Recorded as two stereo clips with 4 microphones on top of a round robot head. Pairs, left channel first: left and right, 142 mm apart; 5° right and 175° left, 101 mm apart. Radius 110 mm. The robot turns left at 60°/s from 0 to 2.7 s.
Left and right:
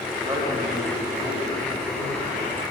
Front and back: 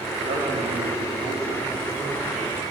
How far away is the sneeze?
No sneeze in this recording.